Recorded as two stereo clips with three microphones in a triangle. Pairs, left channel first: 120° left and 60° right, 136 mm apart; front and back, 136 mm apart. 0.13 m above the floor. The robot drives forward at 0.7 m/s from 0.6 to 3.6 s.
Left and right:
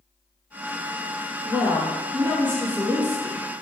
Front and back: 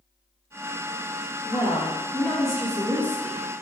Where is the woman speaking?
20° left, 1.5 m; by 3.6 s 160° left, 1.5 m.